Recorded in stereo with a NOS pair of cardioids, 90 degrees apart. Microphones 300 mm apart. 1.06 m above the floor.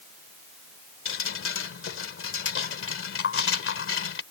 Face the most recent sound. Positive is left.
turn(degrees=45)